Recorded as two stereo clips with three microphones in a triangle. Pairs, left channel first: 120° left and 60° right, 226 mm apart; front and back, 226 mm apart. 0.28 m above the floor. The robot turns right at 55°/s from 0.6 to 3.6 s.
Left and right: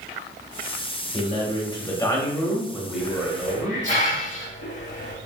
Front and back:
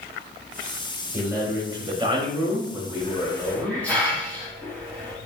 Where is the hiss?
45° left, 1.0 m; by 5.2 s 80° left, 1.0 m.